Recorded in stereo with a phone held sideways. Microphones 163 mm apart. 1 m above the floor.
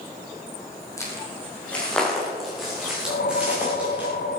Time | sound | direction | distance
1.0 | footsteps | 20° left (ahead or behind) | 3.5 m
3.1 | a whoosh | 75° left (ahead or behind) | 1.4 m